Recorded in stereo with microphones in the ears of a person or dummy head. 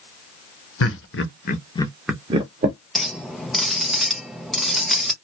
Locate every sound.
0.8 s laughter: 70° left (ahead or behind), 1.0 m; by 2.8 s 40° right (ahead or behind), 0.8 m
3.0 s a clink: 5° right (ahead or behind), 0.5 m